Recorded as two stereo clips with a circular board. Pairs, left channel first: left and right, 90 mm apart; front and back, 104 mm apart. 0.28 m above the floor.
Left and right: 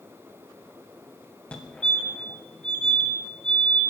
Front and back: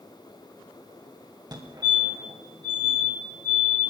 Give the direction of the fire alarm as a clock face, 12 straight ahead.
7 o'clock.